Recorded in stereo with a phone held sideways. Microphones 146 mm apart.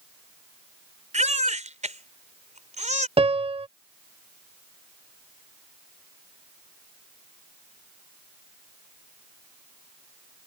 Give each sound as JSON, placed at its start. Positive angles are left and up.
{"t": 1.1, "sound": "a baby crying", "side_deg": -55}
{"t": 3.2, "sound": "a piano", "side_deg": -40}